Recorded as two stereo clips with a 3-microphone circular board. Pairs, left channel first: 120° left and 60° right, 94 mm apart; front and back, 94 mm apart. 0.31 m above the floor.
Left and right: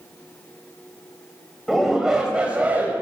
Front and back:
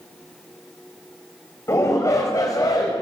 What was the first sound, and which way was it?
A shout, 30° left.